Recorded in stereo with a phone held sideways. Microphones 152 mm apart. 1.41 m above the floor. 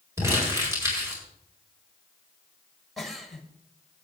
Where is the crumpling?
20° right (ahead or behind), 5 m.